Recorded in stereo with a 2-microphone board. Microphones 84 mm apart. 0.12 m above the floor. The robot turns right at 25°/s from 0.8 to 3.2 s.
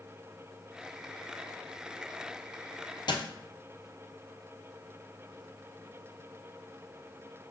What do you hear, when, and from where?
3.1 s a dropped coin: 60° left (ahead or behind), 0.9 m